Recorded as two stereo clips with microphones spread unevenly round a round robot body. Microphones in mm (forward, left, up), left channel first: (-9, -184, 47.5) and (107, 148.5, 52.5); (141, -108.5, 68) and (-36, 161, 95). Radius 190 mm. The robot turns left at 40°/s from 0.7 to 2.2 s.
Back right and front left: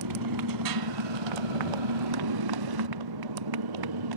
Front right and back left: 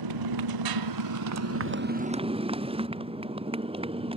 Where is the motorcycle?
110° left; by 4.2 s 50° left.